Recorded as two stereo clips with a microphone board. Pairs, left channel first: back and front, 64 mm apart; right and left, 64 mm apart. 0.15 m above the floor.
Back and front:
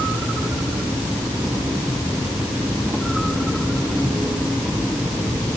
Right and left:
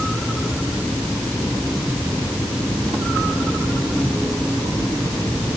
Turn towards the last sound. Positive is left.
No sound to turn to.